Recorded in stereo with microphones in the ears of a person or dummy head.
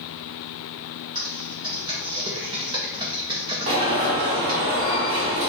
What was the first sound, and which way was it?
Typing on a keyboard, 25° right (ahead or behind).